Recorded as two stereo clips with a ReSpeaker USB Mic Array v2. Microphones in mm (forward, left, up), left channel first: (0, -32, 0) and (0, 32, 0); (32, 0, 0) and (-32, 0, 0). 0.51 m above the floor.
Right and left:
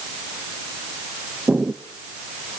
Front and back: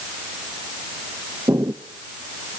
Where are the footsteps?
155° left, 1.3 m.